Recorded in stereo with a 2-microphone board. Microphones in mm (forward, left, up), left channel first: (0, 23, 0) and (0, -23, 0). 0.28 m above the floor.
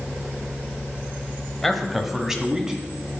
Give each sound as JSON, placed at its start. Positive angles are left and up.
{"t": 1.6, "sound": "a man speaking", "side_deg": 5, "distance_m": 1.2}